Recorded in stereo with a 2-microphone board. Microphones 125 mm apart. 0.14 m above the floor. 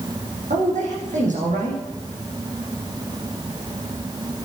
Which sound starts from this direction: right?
A man speaking, at 0.5 s.